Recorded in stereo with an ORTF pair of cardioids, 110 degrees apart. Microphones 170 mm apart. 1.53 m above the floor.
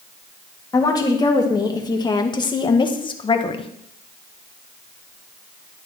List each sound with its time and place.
0.7 s a woman speaking: 20° left, 3 m; by 3.7 s 30° left, 1.5 m